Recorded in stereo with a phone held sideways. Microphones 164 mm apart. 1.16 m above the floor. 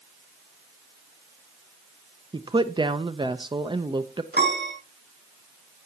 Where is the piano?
80° right, 5 m.